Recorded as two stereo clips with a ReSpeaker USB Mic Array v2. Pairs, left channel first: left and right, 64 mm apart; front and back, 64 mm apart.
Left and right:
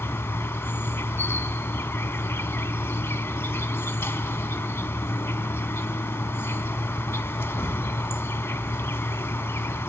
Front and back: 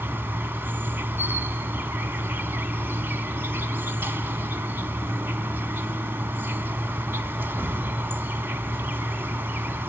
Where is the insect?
130° left, 0.7 m.